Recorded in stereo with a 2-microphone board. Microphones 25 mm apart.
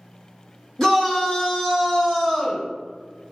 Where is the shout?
20° left (ahead or behind), 1.3 m; by 2.6 s 40° left (ahead or behind), 2 m.